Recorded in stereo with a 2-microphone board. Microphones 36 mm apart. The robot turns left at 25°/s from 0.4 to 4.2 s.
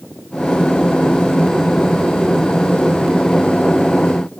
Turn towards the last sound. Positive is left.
No sound to turn to.